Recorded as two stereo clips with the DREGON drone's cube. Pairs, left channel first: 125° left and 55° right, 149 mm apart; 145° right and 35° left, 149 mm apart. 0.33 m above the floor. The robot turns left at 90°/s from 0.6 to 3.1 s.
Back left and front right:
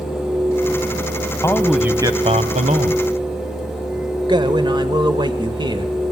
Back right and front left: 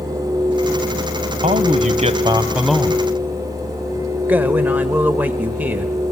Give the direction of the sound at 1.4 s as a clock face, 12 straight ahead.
10 o'clock.